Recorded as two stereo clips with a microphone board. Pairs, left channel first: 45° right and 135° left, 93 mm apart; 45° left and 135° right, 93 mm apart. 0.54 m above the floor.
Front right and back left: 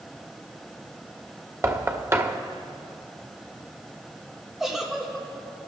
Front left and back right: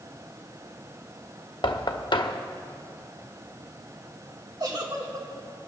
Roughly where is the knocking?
Left.